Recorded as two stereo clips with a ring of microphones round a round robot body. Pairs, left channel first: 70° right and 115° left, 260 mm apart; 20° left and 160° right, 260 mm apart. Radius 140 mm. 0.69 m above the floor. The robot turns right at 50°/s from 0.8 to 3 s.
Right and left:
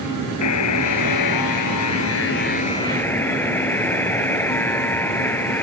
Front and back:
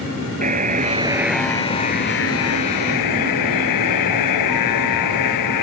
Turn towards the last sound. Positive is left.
turn(degrees=15)